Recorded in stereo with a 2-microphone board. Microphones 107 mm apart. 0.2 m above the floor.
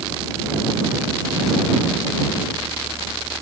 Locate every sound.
Only background noise.